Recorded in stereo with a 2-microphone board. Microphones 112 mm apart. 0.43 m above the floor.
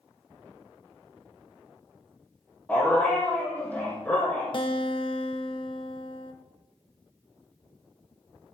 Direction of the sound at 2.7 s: 15° left (ahead or behind).